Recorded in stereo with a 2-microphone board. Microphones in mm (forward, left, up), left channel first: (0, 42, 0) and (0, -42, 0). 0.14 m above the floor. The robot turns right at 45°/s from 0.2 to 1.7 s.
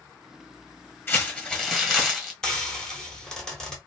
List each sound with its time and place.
1.1 s crumpling: 25° left (ahead or behind), 1.3 m; by 2.3 s centre (ahead or behind), 1.3 m
2.4 s frying: 5° left (ahead or behind), 1.0 m